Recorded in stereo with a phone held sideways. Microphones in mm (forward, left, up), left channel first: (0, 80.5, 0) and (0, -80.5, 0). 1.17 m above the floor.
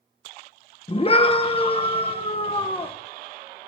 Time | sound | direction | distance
0.9 | a scream | 35° left (ahead or behind) | 0.9 m